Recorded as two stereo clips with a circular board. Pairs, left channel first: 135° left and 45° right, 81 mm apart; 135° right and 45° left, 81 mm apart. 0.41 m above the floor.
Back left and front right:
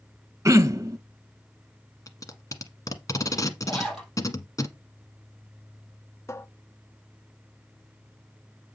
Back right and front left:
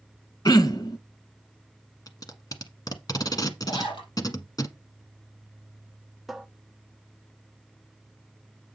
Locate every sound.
0.5 s throat clearing: 95° right, 0.5 m
2.1 s tape being pulled: 175° right, 1.1 m
3.7 s a zipper: 140° right, 4.5 m
6.3 s a cupboard door: 135° left, 0.6 m